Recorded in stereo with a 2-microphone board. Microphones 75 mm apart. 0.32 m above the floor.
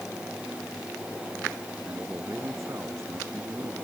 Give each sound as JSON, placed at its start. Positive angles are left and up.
{"t": 1.9, "sound": "a man speaking", "side_deg": -40}